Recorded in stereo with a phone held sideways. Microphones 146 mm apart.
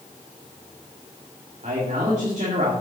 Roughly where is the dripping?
No dripping in this recording.